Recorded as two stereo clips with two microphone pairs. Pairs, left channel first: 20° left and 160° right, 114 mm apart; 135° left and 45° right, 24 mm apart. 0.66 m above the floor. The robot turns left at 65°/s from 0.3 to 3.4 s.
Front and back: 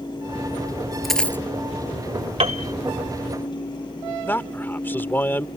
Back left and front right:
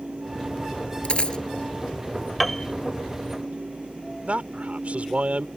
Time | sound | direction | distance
1.0 | a dropped coin | 110° left | ?
2.4 | a piano | 140° right | ?
4.2 | a man speaking | 55° right | ?